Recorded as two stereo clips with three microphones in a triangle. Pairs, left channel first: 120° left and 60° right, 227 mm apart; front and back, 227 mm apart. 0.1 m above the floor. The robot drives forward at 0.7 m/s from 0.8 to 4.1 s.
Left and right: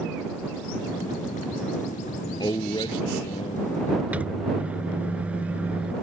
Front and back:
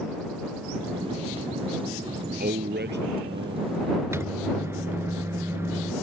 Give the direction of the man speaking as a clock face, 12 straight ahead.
6 o'clock.